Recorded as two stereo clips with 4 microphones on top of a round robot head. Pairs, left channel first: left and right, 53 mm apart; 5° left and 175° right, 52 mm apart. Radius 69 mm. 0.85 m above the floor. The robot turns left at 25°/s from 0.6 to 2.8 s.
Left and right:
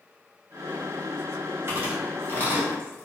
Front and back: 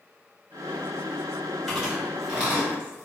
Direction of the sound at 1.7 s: 90° right.